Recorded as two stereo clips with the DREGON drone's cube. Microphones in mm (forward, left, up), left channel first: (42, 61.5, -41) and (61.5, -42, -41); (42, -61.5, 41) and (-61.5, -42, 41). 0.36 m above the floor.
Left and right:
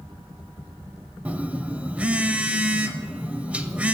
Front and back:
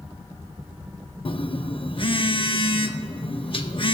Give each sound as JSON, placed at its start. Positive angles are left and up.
{"t": 1.2, "sound": "a phone buzzing", "azimuth_deg": -5, "distance_m": 0.6}